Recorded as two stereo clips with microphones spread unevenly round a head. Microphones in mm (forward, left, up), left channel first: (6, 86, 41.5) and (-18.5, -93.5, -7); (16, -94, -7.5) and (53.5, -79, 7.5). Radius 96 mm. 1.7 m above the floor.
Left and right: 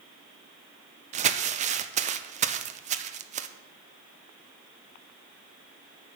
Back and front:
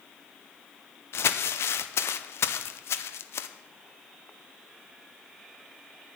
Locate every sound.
1.1 s crumpling: 155° right, 0.7 m